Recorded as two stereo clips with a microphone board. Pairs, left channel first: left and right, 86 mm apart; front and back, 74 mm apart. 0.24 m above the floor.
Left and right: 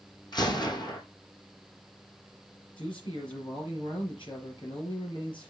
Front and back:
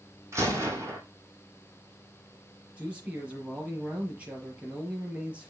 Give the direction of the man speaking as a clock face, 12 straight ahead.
8 o'clock.